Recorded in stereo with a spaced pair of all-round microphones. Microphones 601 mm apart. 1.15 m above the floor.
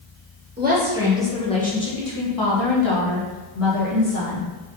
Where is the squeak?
No squeak in this recording.